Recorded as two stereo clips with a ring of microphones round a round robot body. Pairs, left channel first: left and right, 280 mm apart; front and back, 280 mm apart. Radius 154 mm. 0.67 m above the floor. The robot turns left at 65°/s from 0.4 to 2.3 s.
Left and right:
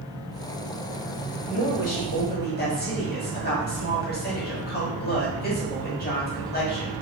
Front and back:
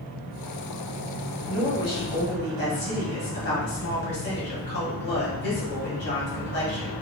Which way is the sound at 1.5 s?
95° left.